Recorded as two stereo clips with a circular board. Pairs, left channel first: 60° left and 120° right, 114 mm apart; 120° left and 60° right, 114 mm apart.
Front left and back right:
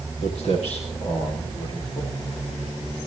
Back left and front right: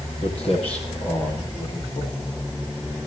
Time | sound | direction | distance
0.2 | footsteps | 85° left | 7.5 m